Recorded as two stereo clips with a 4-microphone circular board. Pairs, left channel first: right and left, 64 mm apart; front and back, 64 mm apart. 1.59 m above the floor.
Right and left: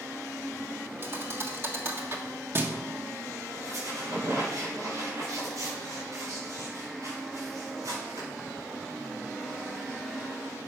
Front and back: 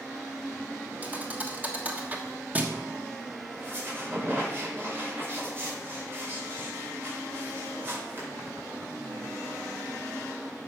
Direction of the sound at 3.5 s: 125° left.